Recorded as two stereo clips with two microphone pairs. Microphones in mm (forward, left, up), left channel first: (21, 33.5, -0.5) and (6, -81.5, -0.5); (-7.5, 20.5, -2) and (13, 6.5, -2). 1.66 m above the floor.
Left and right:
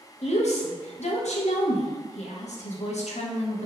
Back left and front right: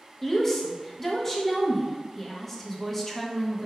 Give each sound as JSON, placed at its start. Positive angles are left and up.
{"t": 0.2, "sound": "a woman speaking", "azimuth_deg": 65, "distance_m": 0.5}